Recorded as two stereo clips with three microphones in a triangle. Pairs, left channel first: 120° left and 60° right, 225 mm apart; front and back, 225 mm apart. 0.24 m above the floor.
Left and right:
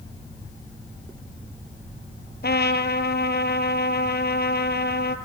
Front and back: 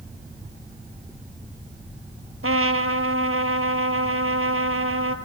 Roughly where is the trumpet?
Behind.